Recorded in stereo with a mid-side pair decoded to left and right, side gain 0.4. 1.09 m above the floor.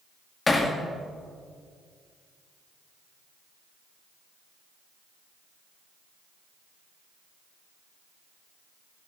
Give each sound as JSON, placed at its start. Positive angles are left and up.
{"t": 0.5, "sound": "hammering", "azimuth_deg": 30, "distance_m": 1.7}